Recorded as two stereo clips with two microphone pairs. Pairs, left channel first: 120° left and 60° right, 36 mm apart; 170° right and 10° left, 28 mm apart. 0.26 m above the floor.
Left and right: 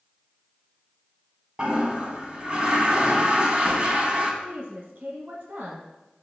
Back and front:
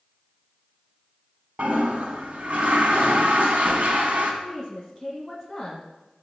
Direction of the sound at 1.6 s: 5° left.